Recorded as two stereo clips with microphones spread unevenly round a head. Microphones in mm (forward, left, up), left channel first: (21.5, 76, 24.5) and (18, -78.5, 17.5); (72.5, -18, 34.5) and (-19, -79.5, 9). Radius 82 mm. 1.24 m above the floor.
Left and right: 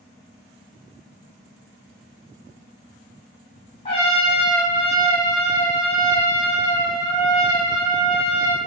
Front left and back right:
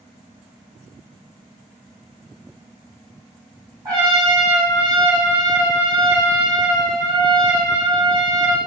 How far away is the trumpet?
About 0.8 m.